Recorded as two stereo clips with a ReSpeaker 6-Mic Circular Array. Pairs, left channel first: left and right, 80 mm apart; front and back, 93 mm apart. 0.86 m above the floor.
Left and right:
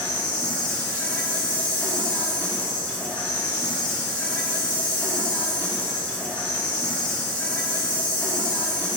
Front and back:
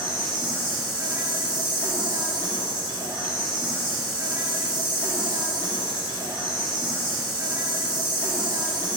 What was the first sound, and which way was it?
An insect, 160° left.